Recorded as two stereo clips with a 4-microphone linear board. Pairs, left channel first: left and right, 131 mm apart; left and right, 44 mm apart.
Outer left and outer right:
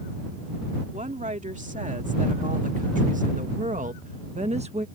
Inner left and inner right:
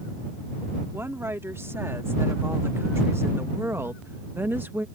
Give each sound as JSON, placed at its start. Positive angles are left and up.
{"t": 0.9, "sound": "a woman speaking", "side_deg": -70}